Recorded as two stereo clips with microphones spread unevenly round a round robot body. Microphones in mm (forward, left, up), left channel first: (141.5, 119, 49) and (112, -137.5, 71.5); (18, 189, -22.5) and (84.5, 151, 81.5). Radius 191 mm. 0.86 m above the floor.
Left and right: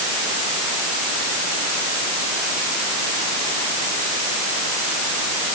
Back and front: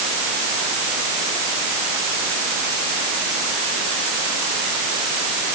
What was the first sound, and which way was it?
Only background noise.